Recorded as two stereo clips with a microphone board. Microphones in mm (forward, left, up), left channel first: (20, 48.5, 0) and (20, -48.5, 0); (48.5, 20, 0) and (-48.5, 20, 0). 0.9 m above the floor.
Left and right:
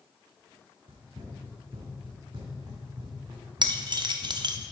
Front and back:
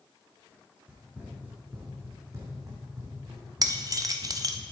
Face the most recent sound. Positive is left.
turn(degrees=-130)